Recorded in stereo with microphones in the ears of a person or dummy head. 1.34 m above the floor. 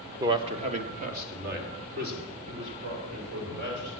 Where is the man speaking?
20° right (ahead or behind), 1.0 m; by 3.9 s 65° right (ahead or behind), 5.5 m.